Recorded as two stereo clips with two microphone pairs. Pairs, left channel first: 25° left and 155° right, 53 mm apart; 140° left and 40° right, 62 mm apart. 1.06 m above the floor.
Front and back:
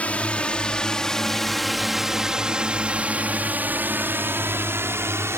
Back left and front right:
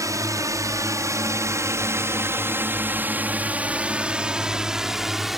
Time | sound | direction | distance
0.0 | a drone | 35° right | ?